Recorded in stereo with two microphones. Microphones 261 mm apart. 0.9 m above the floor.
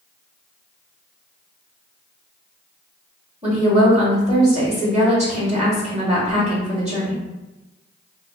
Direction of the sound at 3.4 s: 25° right (ahead or behind).